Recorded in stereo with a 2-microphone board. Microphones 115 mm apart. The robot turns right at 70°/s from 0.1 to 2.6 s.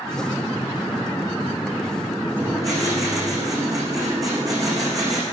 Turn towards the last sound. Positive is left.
turn(degrees=-30)  # may be behind; listen again after turning